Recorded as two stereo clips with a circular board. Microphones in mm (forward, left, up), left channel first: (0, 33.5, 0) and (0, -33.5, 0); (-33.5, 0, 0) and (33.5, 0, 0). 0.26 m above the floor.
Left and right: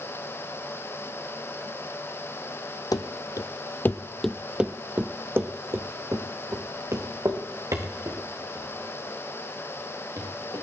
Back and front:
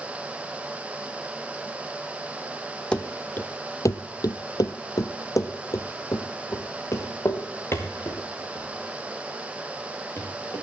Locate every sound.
2.9 s running footsteps: 105° left, 0.8 m; by 10.6 s 120° right, 4 m